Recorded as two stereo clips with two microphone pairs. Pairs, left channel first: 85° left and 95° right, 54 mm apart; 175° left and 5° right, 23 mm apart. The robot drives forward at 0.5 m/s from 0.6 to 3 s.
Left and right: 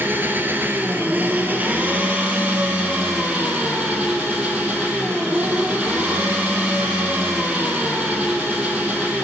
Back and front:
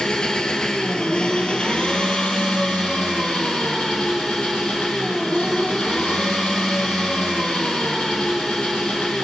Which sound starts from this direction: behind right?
An engine running, at 0.0 s.